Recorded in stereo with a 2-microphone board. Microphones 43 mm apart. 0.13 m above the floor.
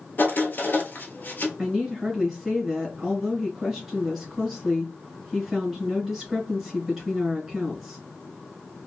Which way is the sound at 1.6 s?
5° right (ahead or behind).